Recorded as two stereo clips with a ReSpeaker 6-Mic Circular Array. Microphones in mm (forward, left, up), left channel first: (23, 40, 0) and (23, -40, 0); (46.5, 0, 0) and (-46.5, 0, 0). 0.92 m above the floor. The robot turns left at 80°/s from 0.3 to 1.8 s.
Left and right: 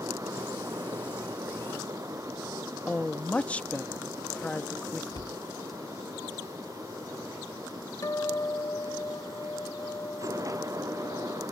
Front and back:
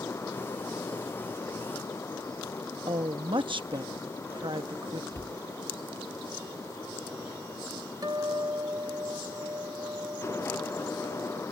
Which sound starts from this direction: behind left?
A guitar, at 8.0 s.